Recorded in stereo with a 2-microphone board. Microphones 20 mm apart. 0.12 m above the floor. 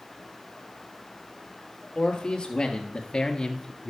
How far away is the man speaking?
About 2.5 m.